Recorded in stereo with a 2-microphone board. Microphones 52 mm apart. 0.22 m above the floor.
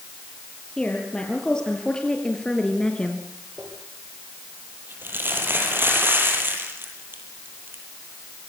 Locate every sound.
0.8 s a woman speaking: 15° left (ahead or behind), 6 m
3.6 s crumpling: 40° right (ahead or behind), 8 m